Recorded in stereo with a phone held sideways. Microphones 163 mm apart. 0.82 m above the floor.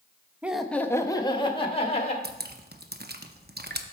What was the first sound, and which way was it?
Laughter, 10° right (ahead or behind).